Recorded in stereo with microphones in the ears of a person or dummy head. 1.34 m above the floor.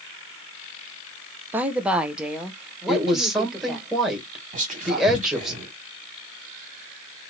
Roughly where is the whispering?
Right.